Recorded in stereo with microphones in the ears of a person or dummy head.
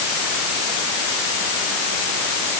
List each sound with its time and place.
Only background noise.